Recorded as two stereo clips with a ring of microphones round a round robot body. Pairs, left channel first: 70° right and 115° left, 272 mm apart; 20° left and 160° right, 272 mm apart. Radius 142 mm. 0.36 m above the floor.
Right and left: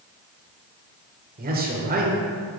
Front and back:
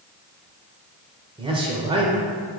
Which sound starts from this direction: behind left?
A man speaking, at 1.4 s.